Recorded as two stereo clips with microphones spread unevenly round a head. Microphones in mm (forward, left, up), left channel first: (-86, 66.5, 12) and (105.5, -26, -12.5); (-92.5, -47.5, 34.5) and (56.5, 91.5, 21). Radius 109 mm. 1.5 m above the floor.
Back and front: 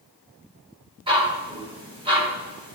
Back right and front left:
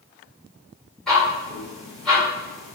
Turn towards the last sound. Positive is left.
turn(degrees=-65)